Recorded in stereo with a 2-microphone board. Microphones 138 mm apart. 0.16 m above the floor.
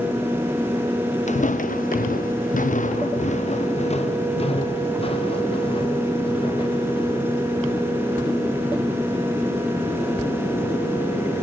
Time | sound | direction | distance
1.3 | footsteps | 60° left (ahead or behind) | 1.1 m